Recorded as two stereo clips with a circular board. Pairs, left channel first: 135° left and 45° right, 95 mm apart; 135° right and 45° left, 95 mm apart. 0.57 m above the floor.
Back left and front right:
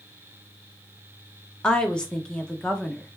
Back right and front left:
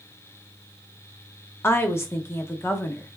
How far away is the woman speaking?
About 0.8 m.